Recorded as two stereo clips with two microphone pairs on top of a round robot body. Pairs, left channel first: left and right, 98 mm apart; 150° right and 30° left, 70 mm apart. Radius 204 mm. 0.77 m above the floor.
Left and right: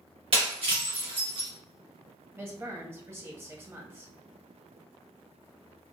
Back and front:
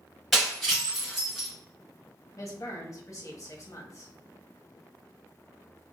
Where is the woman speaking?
140° right, 1.0 m.